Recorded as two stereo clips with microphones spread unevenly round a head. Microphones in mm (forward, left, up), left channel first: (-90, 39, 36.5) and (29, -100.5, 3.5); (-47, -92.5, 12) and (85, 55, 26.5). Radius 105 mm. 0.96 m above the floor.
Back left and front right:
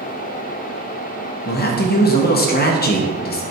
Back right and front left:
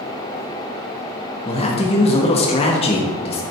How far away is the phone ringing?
I don't hear a phone ringing.